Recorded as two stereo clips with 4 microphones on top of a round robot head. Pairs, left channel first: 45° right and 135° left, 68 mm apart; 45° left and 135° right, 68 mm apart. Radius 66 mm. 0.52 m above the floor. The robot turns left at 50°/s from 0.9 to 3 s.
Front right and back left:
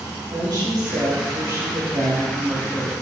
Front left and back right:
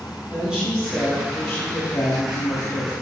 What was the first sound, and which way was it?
A woman speaking, 150° left.